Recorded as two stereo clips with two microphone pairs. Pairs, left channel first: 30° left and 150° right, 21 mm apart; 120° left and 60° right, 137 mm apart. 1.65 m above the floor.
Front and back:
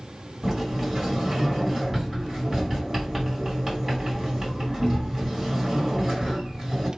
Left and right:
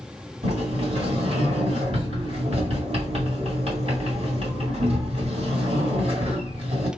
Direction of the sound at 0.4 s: 75° right.